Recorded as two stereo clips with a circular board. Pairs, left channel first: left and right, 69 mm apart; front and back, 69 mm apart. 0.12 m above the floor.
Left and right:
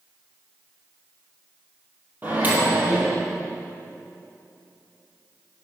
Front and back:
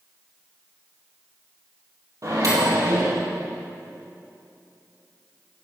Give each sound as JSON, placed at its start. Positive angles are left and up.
{"t": 2.2, "sound": "a microwave", "azimuth_deg": -150, "distance_m": 2.5}